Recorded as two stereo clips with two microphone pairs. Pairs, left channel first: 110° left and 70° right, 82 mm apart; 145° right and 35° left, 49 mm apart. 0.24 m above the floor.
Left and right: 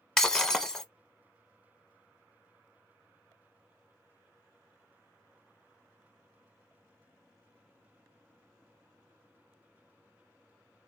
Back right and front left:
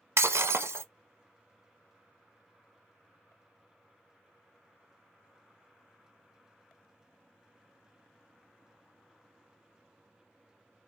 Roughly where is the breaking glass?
Ahead left.